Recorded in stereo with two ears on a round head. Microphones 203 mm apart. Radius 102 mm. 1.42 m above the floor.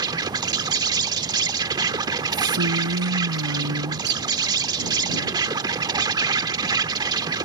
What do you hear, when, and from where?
0.0 s an insect: 20° right (ahead or behind)
2.3 s a woman speaking: 80° right